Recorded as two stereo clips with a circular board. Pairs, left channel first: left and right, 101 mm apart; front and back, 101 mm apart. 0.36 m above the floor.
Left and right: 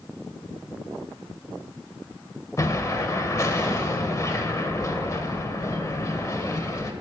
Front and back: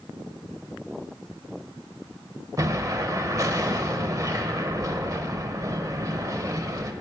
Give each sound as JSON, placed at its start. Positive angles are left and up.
{"t": 2.6, "sound": "an explosion", "azimuth_deg": 135, "distance_m": 0.8}